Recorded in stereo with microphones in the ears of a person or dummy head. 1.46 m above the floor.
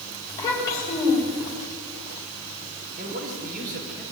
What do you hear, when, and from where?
0.3 s a child speaking: 15° left (ahead or behind), 6 m
3.0 s a man speaking: 50° right (ahead or behind), 5.5 m